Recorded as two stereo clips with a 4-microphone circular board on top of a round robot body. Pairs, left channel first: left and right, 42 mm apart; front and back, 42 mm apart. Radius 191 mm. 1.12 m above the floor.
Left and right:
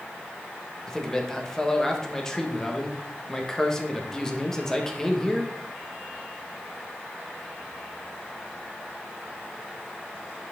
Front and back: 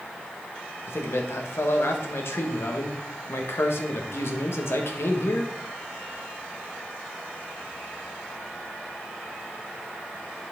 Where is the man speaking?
15° left, 1.7 m.